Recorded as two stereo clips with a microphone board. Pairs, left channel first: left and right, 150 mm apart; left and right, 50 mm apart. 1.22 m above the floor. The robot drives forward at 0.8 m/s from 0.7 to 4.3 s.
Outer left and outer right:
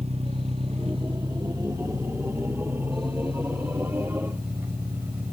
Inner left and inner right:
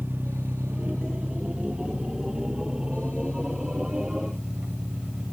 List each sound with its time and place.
0.0 s an engine running: 45° right (ahead or behind), 1.2 m; by 5.3 s 15° right (ahead or behind), 4 m